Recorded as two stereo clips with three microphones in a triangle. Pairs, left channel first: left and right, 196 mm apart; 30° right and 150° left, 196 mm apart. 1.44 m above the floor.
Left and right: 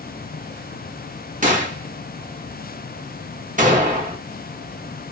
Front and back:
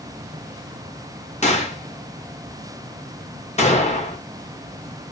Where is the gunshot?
65° right, 0.9 m.